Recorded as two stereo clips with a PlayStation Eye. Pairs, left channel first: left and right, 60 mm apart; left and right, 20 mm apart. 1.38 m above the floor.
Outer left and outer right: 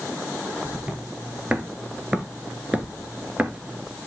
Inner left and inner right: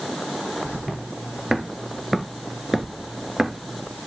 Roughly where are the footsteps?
Centre.